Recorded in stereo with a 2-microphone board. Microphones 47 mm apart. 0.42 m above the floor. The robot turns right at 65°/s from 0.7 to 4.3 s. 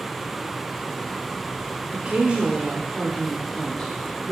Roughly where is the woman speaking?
Right.